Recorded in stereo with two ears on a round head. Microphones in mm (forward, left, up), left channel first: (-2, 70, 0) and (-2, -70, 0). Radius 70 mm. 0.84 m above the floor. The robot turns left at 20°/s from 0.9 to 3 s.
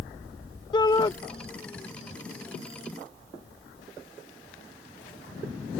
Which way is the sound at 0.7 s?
30° left (ahead or behind).